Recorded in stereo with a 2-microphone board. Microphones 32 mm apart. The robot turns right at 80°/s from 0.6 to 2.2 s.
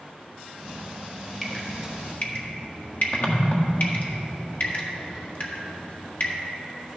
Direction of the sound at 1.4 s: 10° left (ahead or behind).